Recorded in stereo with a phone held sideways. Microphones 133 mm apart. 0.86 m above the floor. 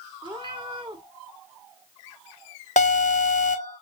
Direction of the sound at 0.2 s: 35° right (ahead or behind).